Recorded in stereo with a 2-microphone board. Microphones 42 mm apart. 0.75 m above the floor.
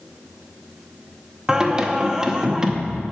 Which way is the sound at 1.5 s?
15° right (ahead or behind).